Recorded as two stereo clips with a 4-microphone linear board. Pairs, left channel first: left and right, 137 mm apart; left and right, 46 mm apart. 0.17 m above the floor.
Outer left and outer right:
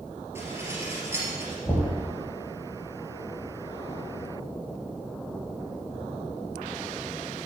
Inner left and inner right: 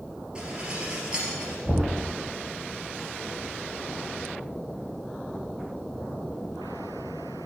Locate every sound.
0.3 s dishes clattering: 20° right (ahead or behind), 2.5 m
1.6 s knocking: 15° left (ahead or behind), 4.5 m